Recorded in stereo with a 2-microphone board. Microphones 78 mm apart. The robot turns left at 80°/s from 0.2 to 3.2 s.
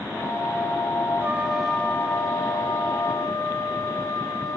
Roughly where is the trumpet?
Behind right.